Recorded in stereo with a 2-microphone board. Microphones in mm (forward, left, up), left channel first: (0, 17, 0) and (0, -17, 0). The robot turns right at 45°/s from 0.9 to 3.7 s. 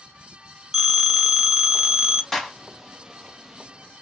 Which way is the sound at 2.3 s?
10° left (ahead or behind).